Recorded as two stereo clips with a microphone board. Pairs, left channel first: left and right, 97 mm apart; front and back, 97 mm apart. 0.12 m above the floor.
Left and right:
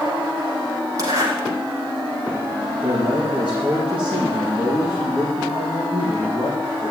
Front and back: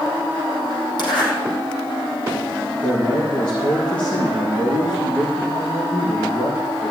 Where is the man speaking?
15° right, 4 m.